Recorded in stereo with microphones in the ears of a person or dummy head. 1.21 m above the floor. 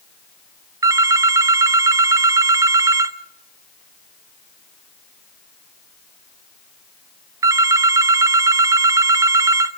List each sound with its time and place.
0.8 s a phone ringing: 15° right (ahead or behind), 0.8 m